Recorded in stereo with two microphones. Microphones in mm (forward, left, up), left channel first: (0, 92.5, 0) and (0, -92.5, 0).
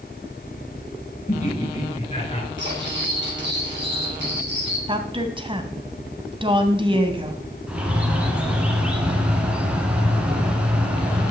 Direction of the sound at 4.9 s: 30° right (ahead or behind).